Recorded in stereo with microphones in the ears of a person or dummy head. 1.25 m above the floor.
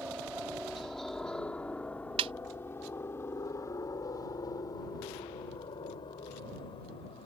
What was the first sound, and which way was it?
A helicopter, 5° right (ahead or behind).